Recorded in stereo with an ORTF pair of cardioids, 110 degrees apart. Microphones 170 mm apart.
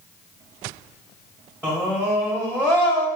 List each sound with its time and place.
1.6 s a scream: 5° right, 2.0 m